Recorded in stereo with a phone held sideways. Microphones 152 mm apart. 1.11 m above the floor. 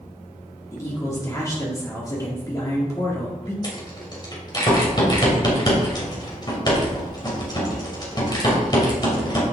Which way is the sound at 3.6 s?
30° left (ahead or behind).